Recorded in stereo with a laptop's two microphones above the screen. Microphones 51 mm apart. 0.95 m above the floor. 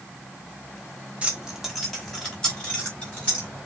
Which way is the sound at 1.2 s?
25° right (ahead or behind).